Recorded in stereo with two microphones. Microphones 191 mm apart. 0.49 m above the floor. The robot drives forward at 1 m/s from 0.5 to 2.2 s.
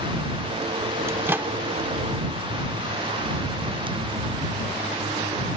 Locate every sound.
1.1 s a microwave: 15° right (ahead or behind); by 1.5 s 10° right (ahead or behind)